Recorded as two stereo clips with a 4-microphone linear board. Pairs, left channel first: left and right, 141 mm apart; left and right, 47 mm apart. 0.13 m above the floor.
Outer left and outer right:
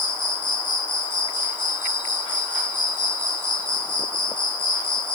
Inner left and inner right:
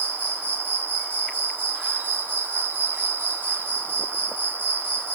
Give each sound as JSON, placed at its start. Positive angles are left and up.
{"t": 0.0, "sound": "an insect", "side_deg": 35, "distance_m": 0.8}